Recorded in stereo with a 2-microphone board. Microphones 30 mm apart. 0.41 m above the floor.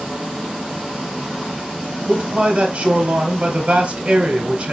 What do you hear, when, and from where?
2.1 s a man speaking: 40° right (ahead or behind), 1.6 m